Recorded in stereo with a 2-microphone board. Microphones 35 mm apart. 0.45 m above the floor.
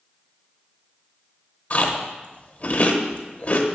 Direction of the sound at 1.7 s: 40° left (ahead or behind).